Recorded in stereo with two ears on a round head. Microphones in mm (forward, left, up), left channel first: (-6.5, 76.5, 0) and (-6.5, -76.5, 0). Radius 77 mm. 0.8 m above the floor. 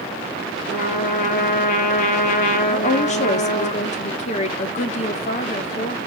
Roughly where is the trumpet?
Left.